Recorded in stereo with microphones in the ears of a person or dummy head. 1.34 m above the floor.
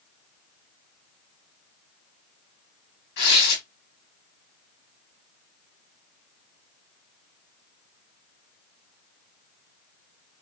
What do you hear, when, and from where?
3.2 s tearing paper: 70° left (ahead or behind), 1.1 m